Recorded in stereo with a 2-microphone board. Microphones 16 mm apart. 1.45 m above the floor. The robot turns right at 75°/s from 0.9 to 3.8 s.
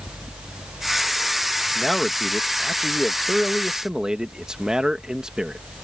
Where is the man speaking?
155° left; by 5.6 s 50° right.